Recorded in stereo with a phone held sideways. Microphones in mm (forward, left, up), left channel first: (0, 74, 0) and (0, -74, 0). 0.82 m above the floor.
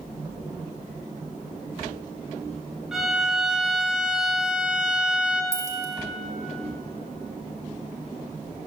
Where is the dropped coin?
20° right (ahead or behind), 0.7 m.